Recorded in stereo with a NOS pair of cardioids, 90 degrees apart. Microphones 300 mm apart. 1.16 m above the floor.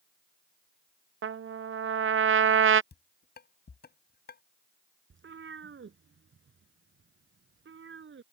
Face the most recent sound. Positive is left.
turn(degrees=-40)